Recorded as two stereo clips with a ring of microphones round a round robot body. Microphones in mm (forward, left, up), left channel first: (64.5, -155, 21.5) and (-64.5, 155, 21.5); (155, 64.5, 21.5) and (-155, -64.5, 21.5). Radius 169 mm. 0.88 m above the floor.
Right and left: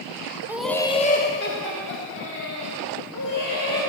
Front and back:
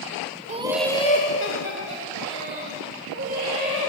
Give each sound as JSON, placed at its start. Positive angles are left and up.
{"t": 0.5, "sound": "laughter", "azimuth_deg": -175, "distance_m": 0.6}